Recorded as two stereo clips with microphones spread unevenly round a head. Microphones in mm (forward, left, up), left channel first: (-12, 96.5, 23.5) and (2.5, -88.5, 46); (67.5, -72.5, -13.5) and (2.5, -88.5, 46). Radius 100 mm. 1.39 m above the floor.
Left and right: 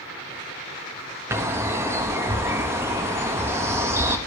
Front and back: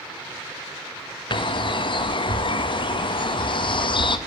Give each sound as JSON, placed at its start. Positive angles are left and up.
{"t": 1.3, "sound": "a bird", "azimuth_deg": -10, "distance_m": 1.1}